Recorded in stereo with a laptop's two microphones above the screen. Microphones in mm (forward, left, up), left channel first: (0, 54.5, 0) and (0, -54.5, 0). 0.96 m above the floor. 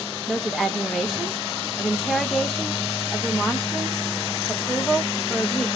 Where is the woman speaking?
Centre (ahead or behind), 0.7 m.